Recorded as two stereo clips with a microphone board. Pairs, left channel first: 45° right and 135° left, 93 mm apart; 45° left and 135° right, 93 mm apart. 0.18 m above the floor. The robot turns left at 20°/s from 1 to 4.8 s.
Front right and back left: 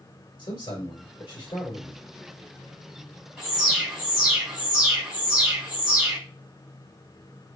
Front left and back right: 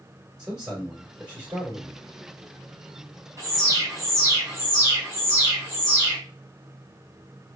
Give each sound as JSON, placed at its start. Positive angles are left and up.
{"t": 0.4, "sound": "a man speaking", "azimuth_deg": -55, "distance_m": 3.0}
{"t": 3.4, "sound": "an alarm", "azimuth_deg": -130, "distance_m": 2.5}